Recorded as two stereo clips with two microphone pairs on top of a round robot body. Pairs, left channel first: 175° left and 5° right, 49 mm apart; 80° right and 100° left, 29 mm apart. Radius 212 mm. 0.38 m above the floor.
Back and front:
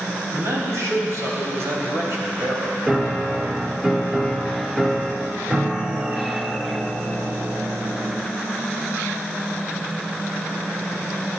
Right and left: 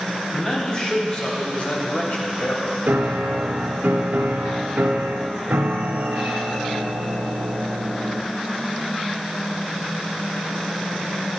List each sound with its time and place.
0.3 s a man speaking: 15° right, 3.5 m; by 2.7 s 50° right, 3 m
2.9 s a piano: 80° left, 0.5 m